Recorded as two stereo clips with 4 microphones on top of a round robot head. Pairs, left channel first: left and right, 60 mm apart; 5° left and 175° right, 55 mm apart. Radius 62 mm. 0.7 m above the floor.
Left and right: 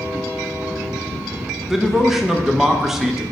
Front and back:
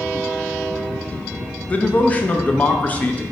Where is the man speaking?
10° right, 0.6 m.